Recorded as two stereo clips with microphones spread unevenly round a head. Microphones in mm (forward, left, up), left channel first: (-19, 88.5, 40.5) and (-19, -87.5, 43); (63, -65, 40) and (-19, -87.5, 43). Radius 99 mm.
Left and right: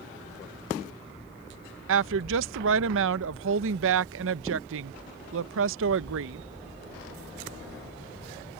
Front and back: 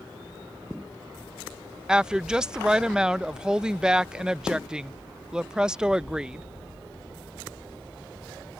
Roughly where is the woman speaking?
Right.